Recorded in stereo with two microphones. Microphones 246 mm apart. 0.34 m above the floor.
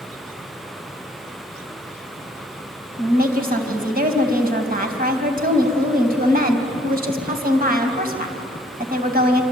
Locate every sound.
3.0 s a woman speaking: 35° right (ahead or behind), 2.5 m